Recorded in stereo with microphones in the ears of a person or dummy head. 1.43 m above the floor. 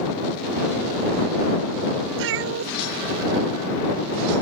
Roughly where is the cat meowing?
Right.